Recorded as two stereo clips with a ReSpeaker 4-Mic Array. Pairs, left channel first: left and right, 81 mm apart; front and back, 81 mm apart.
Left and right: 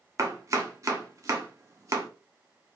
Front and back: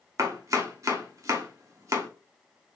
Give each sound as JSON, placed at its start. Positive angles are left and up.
{"t": 0.2, "sound": "chopping", "azimuth_deg": -135, "distance_m": 0.7}